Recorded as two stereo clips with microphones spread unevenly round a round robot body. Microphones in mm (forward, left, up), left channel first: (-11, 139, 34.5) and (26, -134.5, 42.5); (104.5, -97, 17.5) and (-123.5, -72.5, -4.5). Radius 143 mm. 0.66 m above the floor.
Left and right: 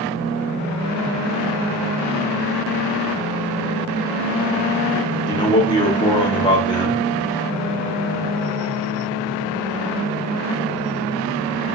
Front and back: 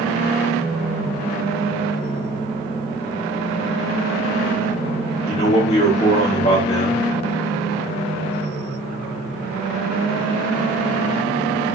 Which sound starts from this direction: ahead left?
A man speaking, at 5.3 s.